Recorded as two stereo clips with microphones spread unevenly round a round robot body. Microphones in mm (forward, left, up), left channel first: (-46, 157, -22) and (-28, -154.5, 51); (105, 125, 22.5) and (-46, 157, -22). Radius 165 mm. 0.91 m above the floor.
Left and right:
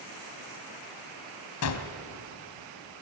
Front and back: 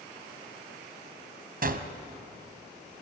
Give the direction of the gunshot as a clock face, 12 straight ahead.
7 o'clock.